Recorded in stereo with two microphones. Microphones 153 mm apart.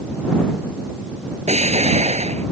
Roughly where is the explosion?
Right.